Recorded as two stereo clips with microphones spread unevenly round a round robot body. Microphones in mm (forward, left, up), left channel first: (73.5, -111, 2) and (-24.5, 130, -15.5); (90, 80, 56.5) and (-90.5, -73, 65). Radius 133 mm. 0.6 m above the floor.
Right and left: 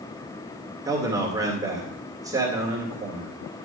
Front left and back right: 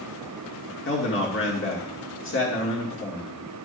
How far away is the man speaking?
About 2 m.